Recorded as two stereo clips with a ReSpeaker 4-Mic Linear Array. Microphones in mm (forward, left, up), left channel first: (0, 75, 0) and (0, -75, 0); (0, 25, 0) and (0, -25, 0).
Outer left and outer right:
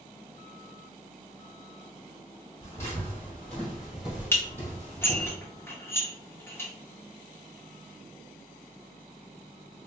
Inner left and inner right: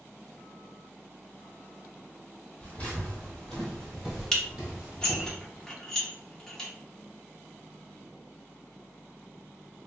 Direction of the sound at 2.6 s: 25° left (ahead or behind).